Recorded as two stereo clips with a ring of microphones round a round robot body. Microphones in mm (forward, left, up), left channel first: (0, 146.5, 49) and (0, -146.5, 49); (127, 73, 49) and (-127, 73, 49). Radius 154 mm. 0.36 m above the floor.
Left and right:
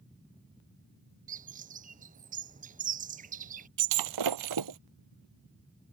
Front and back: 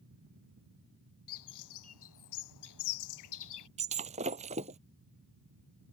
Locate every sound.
1.3 s a bird: 25° right
3.8 s breaking glass: 110° right